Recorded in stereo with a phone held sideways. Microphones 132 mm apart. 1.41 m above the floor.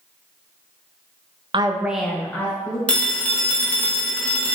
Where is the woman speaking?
40° right (ahead or behind), 0.5 m; by 2.8 s 25° left (ahead or behind), 1.3 m.